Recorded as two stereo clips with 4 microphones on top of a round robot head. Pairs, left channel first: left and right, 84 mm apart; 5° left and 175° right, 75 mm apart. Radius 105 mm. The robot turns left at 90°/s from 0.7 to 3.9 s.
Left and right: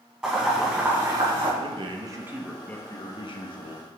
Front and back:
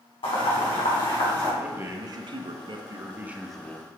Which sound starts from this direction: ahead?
Boiling, at 0.2 s.